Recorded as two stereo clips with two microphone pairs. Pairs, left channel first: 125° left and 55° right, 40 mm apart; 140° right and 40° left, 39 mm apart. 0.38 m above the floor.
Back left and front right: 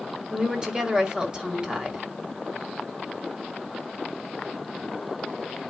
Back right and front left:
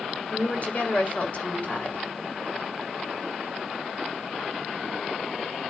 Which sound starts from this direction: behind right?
A woman speaking, at 0.3 s.